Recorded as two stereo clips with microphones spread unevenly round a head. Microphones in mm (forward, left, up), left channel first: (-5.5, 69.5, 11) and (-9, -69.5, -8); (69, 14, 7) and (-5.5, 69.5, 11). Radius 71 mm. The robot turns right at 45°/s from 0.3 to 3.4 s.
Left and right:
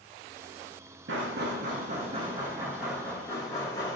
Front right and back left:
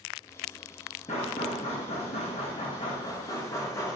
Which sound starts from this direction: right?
Knocking, at 1.1 s.